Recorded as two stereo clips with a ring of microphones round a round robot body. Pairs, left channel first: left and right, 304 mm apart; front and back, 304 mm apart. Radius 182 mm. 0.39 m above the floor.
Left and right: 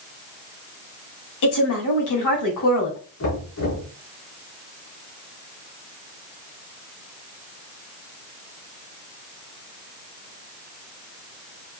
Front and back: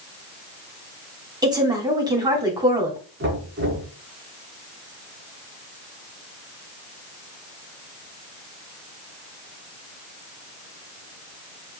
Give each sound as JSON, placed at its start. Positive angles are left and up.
{"t": 1.4, "sound": "a woman speaking", "azimuth_deg": 105, "distance_m": 3.0}
{"t": 3.2, "sound": "knocking", "azimuth_deg": 130, "distance_m": 4.0}